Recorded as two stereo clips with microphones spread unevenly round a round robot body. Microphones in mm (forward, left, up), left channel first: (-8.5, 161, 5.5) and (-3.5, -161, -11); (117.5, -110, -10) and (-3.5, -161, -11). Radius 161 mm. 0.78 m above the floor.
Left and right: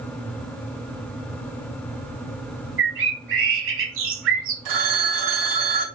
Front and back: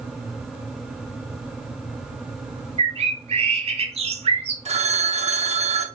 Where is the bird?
135° right, 0.9 m.